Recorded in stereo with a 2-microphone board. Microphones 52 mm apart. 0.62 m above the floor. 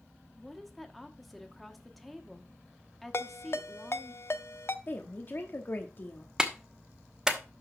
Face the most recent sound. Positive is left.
turn(degrees=-15)  # may be behind; listen again after turning